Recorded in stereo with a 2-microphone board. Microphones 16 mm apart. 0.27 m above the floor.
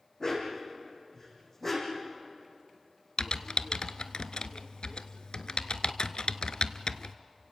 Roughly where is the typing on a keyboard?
Left.